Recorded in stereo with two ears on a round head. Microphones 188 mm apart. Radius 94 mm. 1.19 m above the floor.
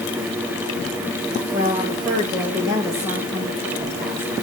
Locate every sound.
1.5 s a woman speaking: 25° right (ahead or behind), 4 m; by 4.3 s 15° right (ahead or behind), 5.5 m